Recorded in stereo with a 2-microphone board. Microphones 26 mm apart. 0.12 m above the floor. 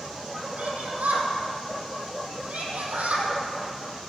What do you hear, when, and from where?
0.6 s a shout: 70° right (ahead or behind), 4.5 m